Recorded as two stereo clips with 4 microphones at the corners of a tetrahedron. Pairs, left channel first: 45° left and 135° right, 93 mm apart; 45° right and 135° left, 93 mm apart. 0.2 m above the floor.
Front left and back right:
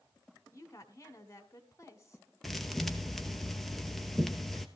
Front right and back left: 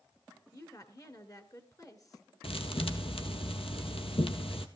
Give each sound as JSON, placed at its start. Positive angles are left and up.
{"t": 0.5, "sound": "a woman speaking", "azimuth_deg": -5, "distance_m": 2.0}
{"t": 2.4, "sound": "a thud", "azimuth_deg": -45, "distance_m": 1.6}